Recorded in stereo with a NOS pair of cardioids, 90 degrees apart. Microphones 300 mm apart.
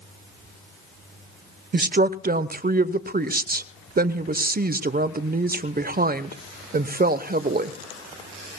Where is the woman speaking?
30° right, 0.9 m.